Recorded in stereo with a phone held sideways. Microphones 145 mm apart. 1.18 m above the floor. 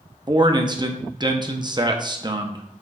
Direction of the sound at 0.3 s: 30° right (ahead or behind).